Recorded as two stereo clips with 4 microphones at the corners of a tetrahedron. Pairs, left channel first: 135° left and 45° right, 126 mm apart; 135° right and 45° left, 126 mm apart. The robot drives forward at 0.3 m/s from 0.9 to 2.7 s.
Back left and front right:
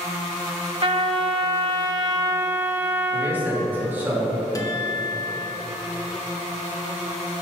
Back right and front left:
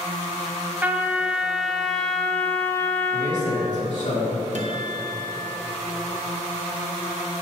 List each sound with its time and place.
0.8 s a trumpet: 25° right, 0.8 m; by 3.7 s 95° right, 0.6 m
3.1 s a man speaking: 120° right, 2.5 m
4.5 s a guitar: 75° left, 0.9 m